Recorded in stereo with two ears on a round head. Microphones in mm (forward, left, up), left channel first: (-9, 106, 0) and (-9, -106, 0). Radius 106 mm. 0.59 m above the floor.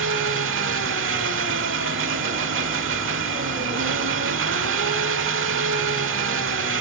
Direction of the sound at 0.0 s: 55° right (ahead or behind).